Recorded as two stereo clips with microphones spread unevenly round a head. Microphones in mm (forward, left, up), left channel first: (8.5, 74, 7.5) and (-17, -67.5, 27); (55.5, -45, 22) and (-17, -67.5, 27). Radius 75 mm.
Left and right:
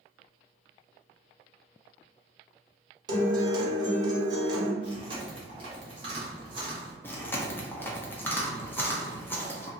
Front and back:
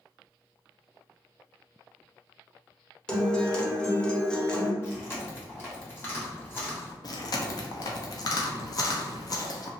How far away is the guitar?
About 0.8 m.